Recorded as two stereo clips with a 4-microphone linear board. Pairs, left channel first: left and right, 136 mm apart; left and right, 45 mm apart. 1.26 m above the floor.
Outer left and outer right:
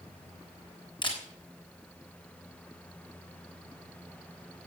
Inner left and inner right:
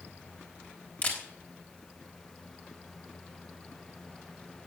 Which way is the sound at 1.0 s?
35° left (ahead or behind).